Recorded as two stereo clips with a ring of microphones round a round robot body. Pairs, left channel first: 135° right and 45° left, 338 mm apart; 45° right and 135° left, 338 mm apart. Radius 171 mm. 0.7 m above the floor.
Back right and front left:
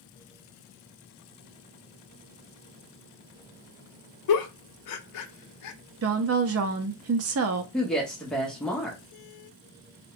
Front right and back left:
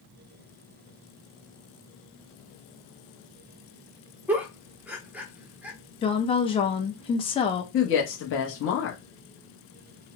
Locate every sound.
4.3 s a giggle: 140° right, 0.5 m
6.0 s a woman speaking: 25° left, 0.5 m
7.7 s a woman speaking: 50° right, 0.7 m